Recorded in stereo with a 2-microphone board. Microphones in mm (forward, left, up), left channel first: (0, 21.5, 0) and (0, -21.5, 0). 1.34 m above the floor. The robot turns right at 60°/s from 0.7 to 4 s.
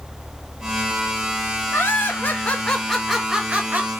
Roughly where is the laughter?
Left.